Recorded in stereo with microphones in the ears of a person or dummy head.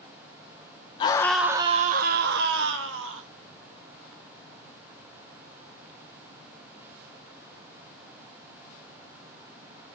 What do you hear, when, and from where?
1.0 s a scream: 30° left (ahead or behind), 0.7 m; by 3.3 s 80° right, 2.0 m